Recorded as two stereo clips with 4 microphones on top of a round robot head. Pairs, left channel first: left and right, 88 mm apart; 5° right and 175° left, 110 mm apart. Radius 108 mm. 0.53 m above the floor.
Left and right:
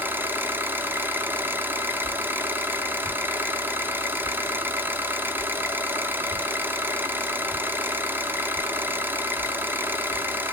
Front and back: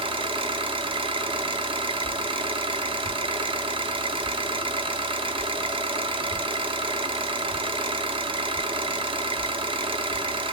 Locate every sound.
0.0 s an engine running: 155° right, 0.7 m
2.0 s a whoosh: 165° left, 1.4 m